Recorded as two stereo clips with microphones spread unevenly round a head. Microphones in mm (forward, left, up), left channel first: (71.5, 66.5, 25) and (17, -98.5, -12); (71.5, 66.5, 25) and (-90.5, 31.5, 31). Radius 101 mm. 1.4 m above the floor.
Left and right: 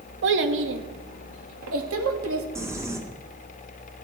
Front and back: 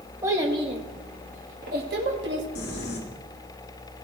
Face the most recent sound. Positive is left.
turn(degrees=-30)